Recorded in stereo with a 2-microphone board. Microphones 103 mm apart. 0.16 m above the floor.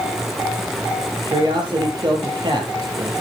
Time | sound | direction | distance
1.2 | a man speaking | 45° right (ahead or behind) | 5 m